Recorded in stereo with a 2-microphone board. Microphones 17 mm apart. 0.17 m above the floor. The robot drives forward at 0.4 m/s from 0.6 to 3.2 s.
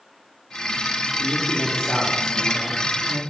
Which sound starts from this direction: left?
A man speaking, at 1.2 s.